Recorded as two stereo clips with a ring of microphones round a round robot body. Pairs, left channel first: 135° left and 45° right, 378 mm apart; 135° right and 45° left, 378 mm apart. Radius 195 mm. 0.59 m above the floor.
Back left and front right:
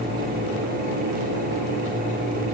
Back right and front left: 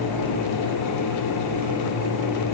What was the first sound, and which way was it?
Only background noise.